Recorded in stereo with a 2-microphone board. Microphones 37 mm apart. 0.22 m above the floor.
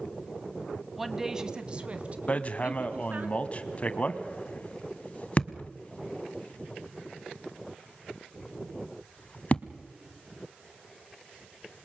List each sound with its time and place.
1.0 s a woman speaking: centre (ahead or behind), 1.2 m; by 3.3 s 50° right (ahead or behind), 2.5 m
2.3 s hammering: 40° left (ahead or behind), 1.0 m